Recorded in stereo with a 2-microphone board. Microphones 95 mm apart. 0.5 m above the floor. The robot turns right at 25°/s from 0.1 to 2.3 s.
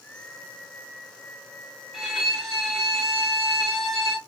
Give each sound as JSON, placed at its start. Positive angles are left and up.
{"t": 1.9, "sound": "a violin", "side_deg": 0, "distance_m": 0.9}